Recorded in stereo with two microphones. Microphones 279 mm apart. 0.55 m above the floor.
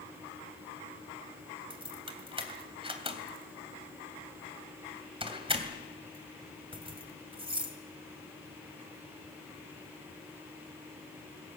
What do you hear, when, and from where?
1.7 s keys jangling: 20° right (ahead or behind), 2.5 m